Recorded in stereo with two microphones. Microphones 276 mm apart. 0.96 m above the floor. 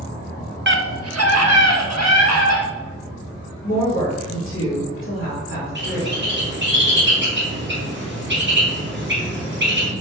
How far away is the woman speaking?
About 2.5 m.